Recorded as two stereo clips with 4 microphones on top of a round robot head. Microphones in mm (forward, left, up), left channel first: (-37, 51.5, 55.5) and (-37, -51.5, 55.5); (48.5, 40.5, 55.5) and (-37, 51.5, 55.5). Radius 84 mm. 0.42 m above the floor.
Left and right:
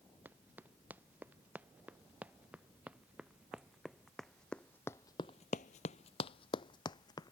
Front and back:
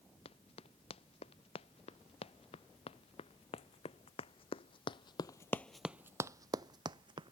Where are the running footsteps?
15° right; by 7.3 s 140° left.